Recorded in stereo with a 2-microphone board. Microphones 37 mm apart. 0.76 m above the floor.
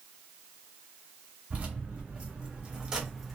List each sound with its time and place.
1.5 s keys jangling: 35° right (ahead or behind), 1.3 m; by 3.4 s centre (ahead or behind), 0.5 m